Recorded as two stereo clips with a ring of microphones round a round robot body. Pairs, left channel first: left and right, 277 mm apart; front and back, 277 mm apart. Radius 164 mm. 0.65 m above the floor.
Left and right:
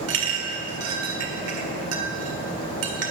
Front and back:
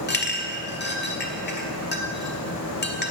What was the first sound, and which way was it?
A clink, 55° right.